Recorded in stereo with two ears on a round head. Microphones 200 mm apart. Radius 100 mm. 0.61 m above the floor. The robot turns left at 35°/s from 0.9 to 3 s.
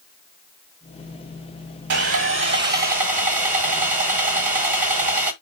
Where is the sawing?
105° right, 1.5 m; by 5.3 s 145° right, 1.5 m.